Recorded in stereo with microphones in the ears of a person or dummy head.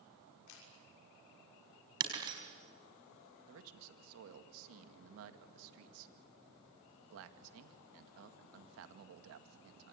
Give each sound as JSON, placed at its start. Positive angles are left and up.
{"t": 0.5, "sound": "a camera shutter", "side_deg": 80, "distance_m": 6.0}
{"t": 2.0, "sound": "breaking glass", "side_deg": -20, "distance_m": 4.0}
{"t": 3.5, "sound": "a man speaking", "side_deg": -75, "distance_m": 2.0}